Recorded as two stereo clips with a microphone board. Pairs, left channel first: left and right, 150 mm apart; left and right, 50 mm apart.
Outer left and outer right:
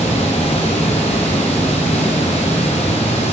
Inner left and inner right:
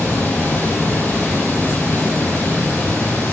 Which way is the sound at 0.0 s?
45° left (ahead or behind).